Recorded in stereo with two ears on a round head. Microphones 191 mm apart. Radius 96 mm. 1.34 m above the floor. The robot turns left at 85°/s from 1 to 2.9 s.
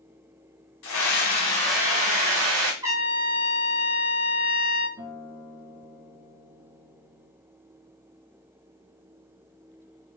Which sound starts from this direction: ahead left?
A scream, at 0.8 s.